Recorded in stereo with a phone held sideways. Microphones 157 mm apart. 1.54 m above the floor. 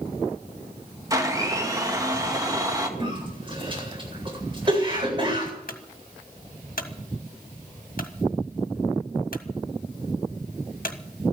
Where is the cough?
35° right (ahead or behind), 8.5 m.